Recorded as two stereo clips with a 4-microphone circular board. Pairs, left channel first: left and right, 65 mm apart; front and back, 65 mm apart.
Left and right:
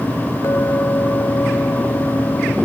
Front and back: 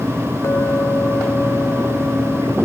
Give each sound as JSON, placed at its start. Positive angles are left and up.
{"t": 0.4, "sound": "a clink", "azimuth_deg": 45}